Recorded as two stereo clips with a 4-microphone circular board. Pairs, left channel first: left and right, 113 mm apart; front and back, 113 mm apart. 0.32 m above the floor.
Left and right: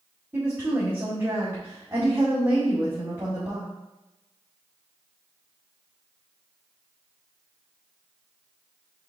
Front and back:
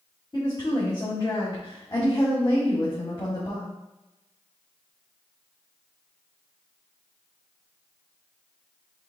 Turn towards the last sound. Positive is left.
turn(degrees=-30)